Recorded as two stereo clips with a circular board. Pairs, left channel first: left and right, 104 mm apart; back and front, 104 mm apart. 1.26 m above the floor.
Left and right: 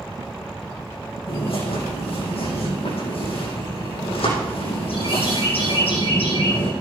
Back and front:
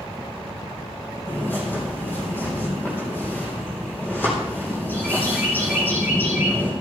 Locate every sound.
1.3 s a bird: 110° left, 9 m